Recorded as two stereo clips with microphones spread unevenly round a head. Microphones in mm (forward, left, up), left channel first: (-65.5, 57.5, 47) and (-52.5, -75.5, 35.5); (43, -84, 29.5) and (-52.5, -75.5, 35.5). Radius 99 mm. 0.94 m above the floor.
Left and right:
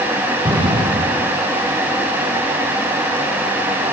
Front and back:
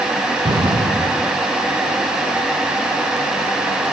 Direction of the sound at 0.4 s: 140° right.